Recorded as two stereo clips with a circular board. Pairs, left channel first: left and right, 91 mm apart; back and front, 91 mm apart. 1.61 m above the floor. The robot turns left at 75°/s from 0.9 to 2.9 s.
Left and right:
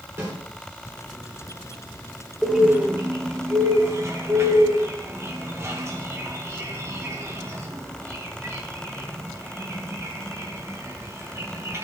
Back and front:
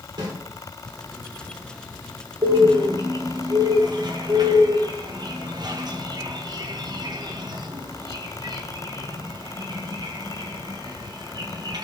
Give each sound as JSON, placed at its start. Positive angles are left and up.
{"t": 0.2, "sound": "a snare drum", "azimuth_deg": -30, "distance_m": 4.0}
{"t": 2.4, "sound": "a bird", "azimuth_deg": 5, "distance_m": 1.4}